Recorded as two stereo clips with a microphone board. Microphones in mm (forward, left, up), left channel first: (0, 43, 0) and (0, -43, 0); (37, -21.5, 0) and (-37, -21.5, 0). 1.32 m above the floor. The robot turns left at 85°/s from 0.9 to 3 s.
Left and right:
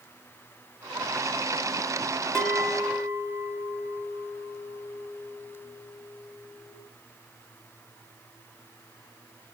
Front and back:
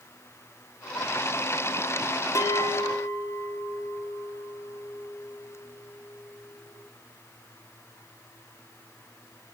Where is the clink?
10° left, 0.7 m; by 6.8 s 45° right, 0.7 m.